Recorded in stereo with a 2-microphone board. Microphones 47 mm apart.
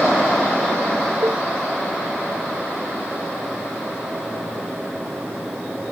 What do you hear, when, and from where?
1.2 s a cowbell: 75° right (ahead or behind)